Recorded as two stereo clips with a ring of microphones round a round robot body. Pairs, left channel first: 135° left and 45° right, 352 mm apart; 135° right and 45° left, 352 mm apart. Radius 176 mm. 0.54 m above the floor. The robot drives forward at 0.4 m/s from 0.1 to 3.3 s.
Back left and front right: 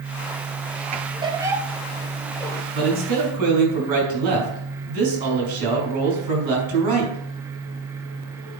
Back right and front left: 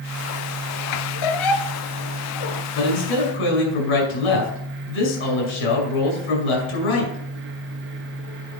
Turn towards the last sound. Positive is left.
turn(degrees=-110)